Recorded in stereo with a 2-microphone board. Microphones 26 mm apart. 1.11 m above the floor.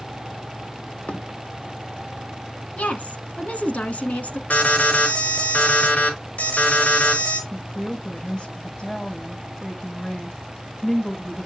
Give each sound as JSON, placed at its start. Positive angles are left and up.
{"t": 1.1, "sound": "a thud", "side_deg": 60, "distance_m": 1.4}
{"t": 2.8, "sound": "a woman speaking", "side_deg": 70, "distance_m": 1.7}
{"t": 4.5, "sound": "an alarm", "side_deg": 75, "distance_m": 3.5}
{"t": 7.5, "sound": "a woman speaking", "side_deg": 25, "distance_m": 5.5}